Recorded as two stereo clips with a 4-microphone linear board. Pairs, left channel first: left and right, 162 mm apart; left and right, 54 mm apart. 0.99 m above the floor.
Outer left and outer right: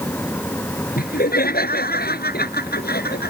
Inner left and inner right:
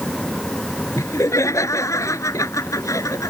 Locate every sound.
1.0 s laughter: 65° left (ahead or behind); by 3.3 s 75° left (ahead or behind)